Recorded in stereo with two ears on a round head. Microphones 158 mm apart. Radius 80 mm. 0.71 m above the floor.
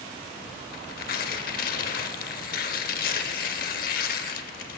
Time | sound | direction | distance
0.7 | tearing paper | 55° left (ahead or behind) | 0.6 m